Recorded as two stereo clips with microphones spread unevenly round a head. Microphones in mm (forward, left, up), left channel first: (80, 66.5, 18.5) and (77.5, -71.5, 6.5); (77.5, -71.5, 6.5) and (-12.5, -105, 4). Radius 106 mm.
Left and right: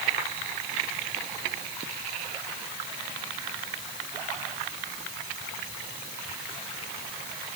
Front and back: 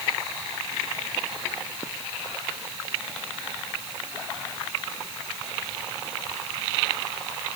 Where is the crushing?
I don't hear crushing.